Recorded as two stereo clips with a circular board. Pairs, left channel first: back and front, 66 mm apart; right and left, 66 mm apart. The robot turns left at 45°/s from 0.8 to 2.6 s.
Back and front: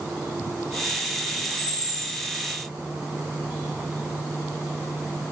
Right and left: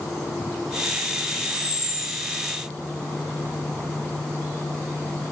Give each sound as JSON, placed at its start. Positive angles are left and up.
{"t": 1.4, "sound": "a camera shutter", "azimuth_deg": 85, "distance_m": 1.3}